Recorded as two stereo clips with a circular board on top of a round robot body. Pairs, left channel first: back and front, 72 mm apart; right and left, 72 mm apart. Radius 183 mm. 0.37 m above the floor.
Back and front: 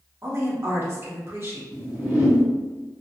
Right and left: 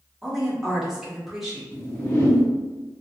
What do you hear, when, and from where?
0.2 s a woman speaking: 10° left, 1.7 m
1.7 s a whoosh: 50° right, 1.7 m